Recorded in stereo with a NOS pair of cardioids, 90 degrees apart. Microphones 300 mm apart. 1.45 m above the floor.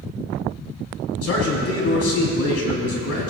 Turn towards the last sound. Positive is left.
turn(degrees=50)